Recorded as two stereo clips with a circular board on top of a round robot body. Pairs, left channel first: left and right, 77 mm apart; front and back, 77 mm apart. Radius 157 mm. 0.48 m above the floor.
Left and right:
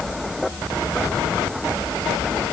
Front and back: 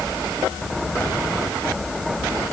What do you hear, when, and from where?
Only background noise.